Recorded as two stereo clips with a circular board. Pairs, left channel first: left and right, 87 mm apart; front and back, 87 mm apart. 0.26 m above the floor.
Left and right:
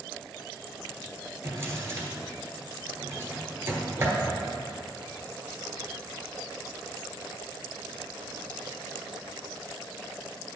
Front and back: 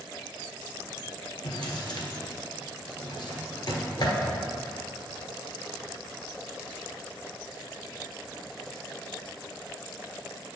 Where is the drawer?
30° right, 1.2 m.